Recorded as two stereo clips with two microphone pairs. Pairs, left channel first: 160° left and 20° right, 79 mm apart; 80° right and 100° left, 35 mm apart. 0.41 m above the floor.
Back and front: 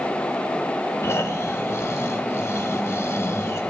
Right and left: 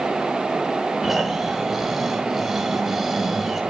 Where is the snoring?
Straight behind, 1.3 m.